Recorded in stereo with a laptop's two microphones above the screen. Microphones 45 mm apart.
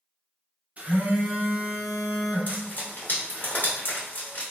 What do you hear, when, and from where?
0.8 s a phone buzzing: 30° right (ahead or behind), 0.8 m
2.5 s frying: 45° left (ahead or behind), 0.9 m